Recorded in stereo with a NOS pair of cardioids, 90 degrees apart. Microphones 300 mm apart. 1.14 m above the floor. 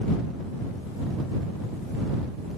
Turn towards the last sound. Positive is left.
No sound to turn to.